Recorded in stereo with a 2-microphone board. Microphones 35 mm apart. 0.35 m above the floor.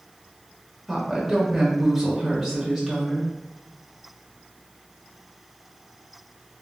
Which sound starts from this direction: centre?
A woman speaking, at 0.9 s.